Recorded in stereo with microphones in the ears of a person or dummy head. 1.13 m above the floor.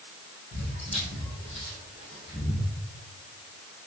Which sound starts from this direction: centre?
Footsteps, at 0.5 s.